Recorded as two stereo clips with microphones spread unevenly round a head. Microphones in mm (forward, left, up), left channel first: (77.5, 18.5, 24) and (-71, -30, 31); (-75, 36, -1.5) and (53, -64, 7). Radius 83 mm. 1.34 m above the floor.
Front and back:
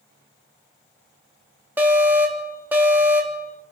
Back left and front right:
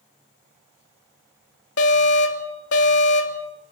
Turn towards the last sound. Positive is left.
turn(degrees=120)